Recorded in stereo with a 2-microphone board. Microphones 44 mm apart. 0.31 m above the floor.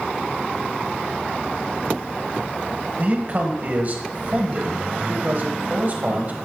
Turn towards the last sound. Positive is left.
turn(degrees=-45)  # may be behind; listen again after turning